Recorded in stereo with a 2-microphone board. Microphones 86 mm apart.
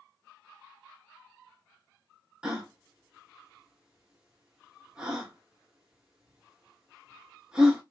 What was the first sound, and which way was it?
A gasp, 10° right (ahead or behind).